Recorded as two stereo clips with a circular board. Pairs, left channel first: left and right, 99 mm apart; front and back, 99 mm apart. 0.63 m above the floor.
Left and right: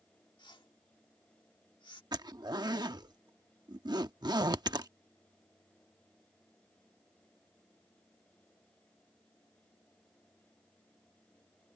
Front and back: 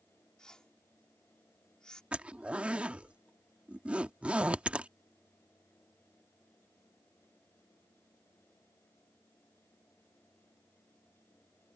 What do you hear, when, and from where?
0.4 s a whoosh: 80° left
2.1 s a zipper: 110° right